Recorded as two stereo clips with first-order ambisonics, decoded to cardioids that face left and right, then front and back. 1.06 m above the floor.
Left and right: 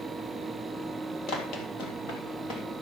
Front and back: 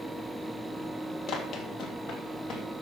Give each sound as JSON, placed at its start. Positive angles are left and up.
{"t": 1.3, "sound": "running footsteps", "azimuth_deg": 50, "distance_m": 2.0}